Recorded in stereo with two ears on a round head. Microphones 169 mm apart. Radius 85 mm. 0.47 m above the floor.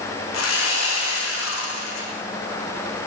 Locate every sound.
0.3 s sawing: 80° left, 7 m